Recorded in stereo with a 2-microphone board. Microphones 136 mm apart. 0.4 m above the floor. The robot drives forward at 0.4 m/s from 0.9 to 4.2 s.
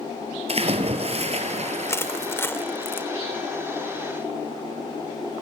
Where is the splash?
50° right (ahead or behind), 2.5 m; by 2.3 s 60° right (ahead or behind), 2.5 m.